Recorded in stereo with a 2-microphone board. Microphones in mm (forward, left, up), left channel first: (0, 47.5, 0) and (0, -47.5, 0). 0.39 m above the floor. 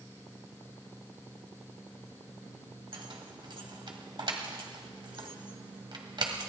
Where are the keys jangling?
55° right (ahead or behind), 1.8 m.